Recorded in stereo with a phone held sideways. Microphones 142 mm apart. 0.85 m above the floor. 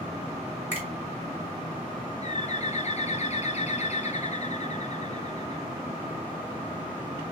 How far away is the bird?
About 0.5 m.